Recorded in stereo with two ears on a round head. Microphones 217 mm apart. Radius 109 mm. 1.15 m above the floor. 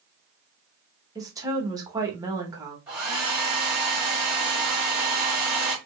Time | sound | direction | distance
1.1 | a woman speaking | 15° right (ahead or behind) | 0.9 m
2.9 | a hair dryer | 5° right (ahead or behind) | 2 m